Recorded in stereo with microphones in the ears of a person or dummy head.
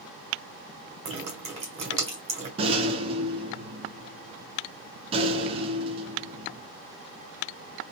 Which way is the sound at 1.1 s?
30° right (ahead or behind).